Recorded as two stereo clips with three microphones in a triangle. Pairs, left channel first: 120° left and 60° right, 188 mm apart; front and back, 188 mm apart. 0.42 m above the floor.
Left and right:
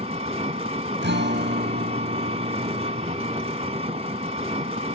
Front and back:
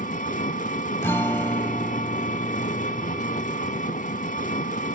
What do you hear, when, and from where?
0.0 s an engine running: 20° right, 0.9 m
1.0 s a guitar: 80° right, 0.7 m